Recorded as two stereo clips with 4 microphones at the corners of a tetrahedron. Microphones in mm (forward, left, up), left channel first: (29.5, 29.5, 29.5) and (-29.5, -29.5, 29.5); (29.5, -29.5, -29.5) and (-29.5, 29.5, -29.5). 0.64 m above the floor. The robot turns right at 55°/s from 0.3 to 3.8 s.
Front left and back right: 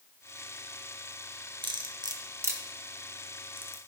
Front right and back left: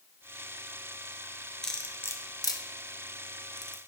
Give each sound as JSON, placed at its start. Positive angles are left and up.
{"t": 1.6, "sound": "cutlery clinking", "azimuth_deg": -125, "distance_m": 0.7}